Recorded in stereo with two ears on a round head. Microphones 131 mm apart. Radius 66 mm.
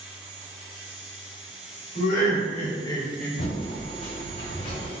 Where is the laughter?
60° left (ahead or behind), 1.6 m; by 3.3 s centre (ahead or behind), 0.8 m.